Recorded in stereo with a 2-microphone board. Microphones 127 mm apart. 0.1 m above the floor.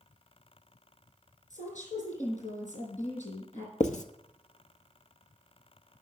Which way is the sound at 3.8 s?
70° left (ahead or behind).